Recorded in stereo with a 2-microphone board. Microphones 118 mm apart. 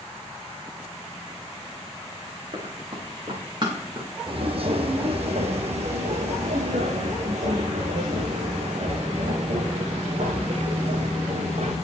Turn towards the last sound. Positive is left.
turn(degrees=-80)